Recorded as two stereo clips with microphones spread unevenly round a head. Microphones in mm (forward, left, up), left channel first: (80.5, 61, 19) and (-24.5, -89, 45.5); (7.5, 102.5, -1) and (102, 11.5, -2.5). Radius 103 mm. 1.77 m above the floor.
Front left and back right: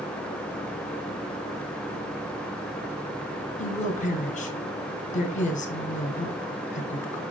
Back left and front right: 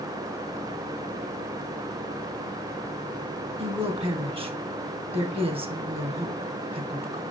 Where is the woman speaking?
5° left, 1.4 m.